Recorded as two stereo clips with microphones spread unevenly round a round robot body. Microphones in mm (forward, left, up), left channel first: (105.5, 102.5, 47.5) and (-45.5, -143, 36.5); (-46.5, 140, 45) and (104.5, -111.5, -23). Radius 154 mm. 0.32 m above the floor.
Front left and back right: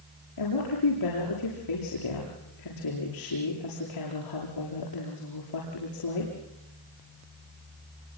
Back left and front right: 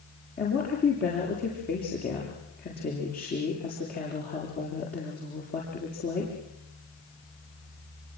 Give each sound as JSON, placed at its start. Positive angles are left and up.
{"t": 0.4, "sound": "a woman speaking", "azimuth_deg": 60, "distance_m": 7.5}